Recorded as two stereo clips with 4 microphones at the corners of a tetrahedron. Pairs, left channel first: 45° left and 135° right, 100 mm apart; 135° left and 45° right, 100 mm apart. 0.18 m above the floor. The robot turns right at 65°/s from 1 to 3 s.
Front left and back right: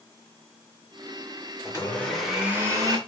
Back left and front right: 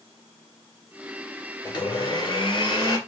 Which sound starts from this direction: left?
A blender, at 1.6 s.